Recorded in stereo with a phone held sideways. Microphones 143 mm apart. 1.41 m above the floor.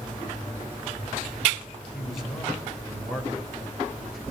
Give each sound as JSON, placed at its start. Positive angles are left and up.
{"t": 1.9, "sound": "a man speaking", "side_deg": 0, "distance_m": 5.0}